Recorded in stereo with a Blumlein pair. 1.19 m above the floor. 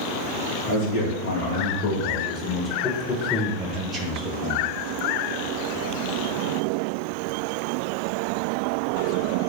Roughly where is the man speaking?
Ahead left.